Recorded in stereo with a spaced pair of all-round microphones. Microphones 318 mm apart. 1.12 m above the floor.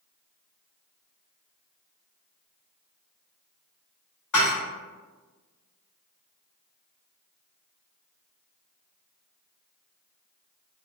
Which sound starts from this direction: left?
Dishes clattering, at 4.3 s.